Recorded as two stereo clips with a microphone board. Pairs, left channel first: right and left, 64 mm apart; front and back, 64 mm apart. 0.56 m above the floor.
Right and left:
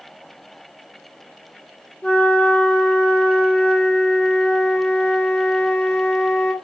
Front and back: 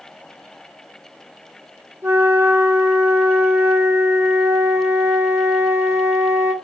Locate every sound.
2.0 s a flute: 150° right, 1.1 m